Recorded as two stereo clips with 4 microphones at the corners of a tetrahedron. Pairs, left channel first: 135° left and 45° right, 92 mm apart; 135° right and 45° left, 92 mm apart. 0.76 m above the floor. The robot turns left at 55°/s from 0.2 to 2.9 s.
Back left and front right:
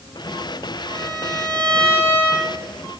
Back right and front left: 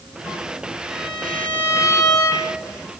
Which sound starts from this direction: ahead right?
A violin, at 0.9 s.